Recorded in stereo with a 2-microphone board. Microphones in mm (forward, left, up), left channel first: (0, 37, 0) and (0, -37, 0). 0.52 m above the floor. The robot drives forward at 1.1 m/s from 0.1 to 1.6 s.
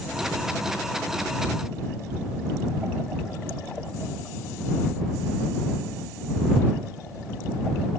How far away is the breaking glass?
I don't hear breaking glass.